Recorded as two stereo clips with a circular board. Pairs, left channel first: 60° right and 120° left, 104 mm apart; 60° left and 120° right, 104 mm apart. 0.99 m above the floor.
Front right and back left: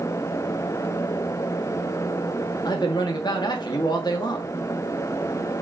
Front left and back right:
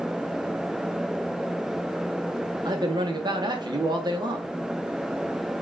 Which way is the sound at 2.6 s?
90° right.